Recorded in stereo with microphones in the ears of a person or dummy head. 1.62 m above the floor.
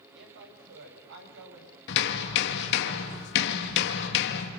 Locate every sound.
0.1 s a woman speaking: 65° right (ahead or behind), 6.5 m
1.9 s hammering: 65° left (ahead or behind), 2.5 m